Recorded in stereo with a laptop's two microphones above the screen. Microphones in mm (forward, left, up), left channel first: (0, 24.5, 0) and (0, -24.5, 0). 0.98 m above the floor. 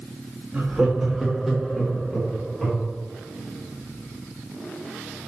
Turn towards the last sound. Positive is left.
turn(degrees=10)  # may be behind; listen again after turning